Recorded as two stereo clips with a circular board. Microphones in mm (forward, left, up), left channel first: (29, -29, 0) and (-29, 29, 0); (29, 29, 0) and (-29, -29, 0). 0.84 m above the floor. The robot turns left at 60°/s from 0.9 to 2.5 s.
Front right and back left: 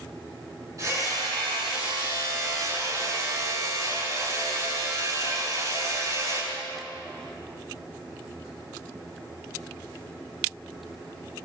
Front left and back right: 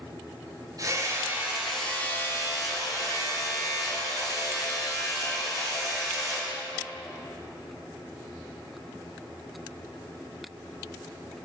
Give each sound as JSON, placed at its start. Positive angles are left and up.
{"t": 0.8, "sound": "hammering", "azimuth_deg": -175, "distance_m": 9.5}